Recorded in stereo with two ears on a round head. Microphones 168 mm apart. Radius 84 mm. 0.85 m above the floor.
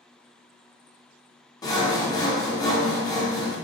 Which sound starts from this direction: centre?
Sawing, at 1.6 s.